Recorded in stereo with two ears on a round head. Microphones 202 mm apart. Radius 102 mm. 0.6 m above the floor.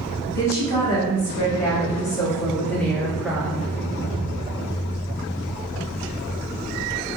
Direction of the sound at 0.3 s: 15° left (ahead or behind).